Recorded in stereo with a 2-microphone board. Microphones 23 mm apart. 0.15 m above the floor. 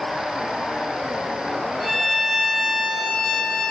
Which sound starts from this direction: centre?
A violin, at 1.8 s.